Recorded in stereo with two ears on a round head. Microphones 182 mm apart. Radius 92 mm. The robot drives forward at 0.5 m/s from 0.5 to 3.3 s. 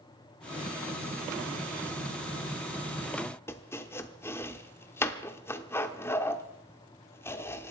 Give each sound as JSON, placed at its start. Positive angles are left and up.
{"t": 3.5, "sound": "chopping", "side_deg": 10, "distance_m": 0.8}